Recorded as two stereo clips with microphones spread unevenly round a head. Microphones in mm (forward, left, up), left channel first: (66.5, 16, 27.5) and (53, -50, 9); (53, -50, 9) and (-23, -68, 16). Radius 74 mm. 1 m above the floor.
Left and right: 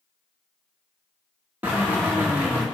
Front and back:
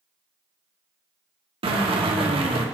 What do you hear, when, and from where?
1.6 s a drill: 175° right, 1.9 m